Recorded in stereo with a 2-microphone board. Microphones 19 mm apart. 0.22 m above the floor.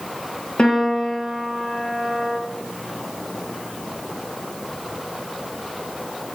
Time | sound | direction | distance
0.6 | a piano | 60° left (ahead or behind) | 3.5 m